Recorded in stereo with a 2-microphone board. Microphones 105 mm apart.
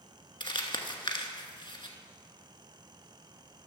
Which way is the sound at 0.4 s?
55° left (ahead or behind).